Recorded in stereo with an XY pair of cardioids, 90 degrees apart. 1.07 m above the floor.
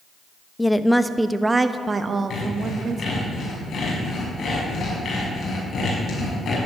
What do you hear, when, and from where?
0.6 s a woman speaking: 15° left, 1.0 m; by 3.3 s 60° right, 1.7 m
2.3 s sawing: 60° left, 6.5 m